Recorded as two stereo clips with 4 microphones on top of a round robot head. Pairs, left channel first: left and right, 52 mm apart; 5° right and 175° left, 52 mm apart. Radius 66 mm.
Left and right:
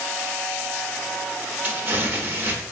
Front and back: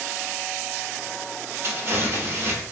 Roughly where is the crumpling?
Behind right.